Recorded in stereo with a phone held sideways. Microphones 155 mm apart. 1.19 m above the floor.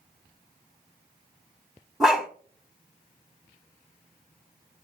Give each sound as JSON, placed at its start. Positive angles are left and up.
{"t": 2.0, "sound": "a dog barking", "side_deg": -5, "distance_m": 1.4}